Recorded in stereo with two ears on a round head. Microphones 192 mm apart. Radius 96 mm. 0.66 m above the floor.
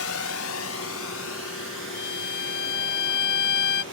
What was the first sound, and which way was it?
A drone, 70° left (ahead or behind).